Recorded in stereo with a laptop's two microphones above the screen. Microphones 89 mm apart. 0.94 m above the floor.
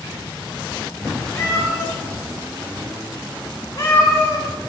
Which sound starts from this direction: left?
A cat meowing, at 1.4 s.